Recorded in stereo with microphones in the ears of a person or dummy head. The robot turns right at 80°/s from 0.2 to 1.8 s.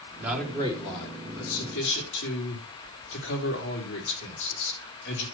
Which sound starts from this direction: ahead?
A man speaking, at 0.2 s.